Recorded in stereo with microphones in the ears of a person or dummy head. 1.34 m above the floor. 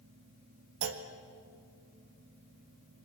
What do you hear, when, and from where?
0.8 s a clunk: 70° right (ahead or behind), 1.5 m